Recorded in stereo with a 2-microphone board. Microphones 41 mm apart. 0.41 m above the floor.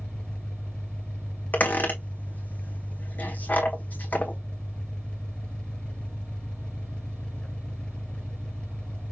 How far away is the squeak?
About 1.4 m.